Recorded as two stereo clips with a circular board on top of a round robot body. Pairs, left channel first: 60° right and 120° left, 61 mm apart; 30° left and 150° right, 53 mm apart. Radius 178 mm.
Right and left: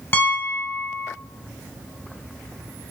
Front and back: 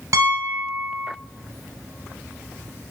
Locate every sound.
0.1 s a piano: 115° right, 0.9 m